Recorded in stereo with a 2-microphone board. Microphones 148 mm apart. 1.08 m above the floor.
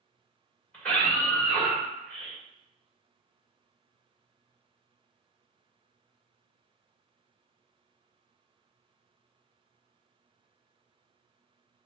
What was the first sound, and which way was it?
A scream, 10° left (ahead or behind).